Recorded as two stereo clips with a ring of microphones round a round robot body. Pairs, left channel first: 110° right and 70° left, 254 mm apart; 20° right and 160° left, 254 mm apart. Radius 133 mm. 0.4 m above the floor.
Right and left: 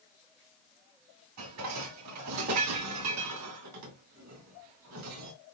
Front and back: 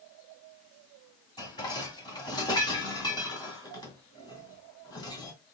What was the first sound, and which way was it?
Dishes clattering, 50° left.